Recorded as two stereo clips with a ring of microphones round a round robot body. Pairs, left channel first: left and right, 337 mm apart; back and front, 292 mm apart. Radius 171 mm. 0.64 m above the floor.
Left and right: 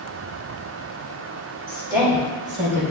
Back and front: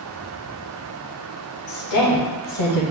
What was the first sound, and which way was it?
A woman speaking, 175° right.